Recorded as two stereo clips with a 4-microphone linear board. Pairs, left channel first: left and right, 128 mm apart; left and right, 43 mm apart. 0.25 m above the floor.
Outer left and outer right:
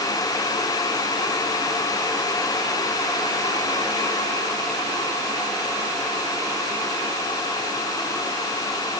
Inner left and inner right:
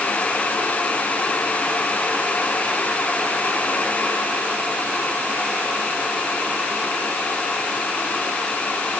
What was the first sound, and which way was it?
Only background noise.